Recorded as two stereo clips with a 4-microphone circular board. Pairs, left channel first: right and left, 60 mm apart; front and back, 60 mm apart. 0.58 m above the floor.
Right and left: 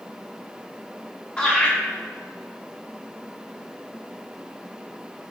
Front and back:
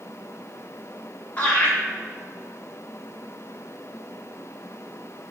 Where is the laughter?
40° right, 0.7 m.